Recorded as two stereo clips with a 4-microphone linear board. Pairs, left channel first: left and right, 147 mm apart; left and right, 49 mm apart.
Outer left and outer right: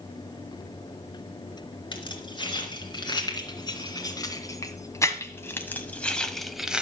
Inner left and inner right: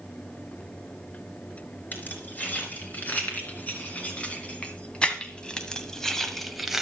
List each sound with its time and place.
1.9 s keys jangling: 35° left (ahead or behind), 3 m; by 6.8 s 5° right (ahead or behind), 1.0 m